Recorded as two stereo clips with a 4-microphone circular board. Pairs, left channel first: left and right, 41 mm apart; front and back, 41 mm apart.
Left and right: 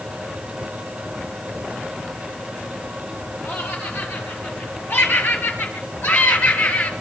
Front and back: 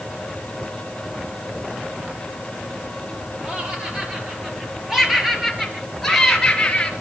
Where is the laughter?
115° left, 7 m; by 6.9 s 65° left, 4.5 m.